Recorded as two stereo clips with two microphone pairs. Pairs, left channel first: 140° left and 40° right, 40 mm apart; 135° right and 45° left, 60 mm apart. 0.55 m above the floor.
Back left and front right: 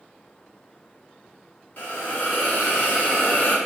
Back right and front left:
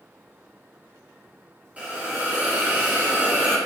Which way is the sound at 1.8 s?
105° left.